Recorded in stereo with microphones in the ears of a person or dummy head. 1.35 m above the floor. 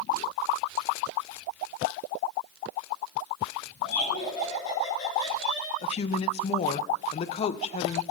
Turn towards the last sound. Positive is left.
turn(degrees=40)  # may be behind; listen again after turning